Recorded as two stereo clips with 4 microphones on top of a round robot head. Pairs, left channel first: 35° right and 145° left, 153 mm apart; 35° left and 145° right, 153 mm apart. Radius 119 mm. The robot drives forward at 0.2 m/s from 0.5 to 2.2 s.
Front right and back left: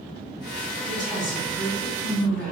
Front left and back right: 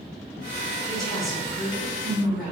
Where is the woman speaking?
120° left, 1.9 m; by 2.5 s 125° left, 2 m.